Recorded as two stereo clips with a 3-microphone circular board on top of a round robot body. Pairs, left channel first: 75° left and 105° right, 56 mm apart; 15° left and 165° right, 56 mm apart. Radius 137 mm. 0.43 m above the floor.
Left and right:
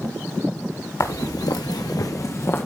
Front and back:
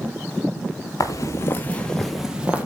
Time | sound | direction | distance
1.0 | footsteps | 40° left | 1.2 m